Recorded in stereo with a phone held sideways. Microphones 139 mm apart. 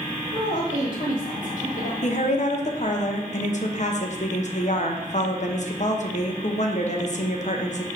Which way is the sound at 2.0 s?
55° left (ahead or behind).